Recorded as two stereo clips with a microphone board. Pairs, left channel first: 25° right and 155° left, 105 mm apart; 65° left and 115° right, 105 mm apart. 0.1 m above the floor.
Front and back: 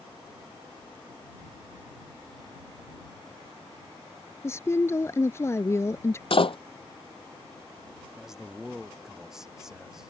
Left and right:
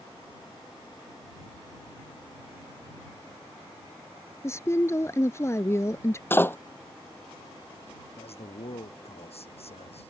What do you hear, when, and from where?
4.4 s a woman speaking: 25° left
6.3 s a door slam: straight ahead
8.2 s a man speaking: 70° left